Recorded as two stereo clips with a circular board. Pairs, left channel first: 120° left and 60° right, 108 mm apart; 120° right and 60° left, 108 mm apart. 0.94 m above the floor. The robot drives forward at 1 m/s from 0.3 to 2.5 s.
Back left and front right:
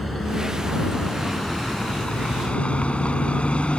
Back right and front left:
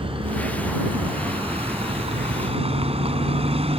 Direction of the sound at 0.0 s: 30° left.